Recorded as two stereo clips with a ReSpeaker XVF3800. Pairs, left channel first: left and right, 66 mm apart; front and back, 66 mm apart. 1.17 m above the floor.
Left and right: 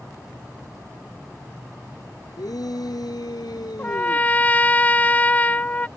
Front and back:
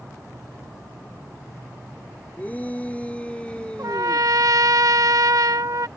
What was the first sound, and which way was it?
A shout, 70° left.